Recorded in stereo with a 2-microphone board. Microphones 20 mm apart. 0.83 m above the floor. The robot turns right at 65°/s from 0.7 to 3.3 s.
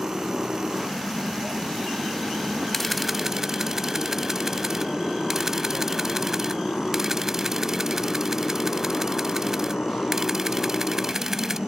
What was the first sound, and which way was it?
A motorcycle, 35° right (ahead or behind).